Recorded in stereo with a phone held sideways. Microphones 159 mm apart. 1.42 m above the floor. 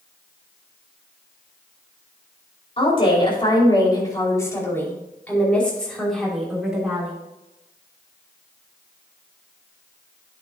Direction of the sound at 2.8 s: 40° left (ahead or behind).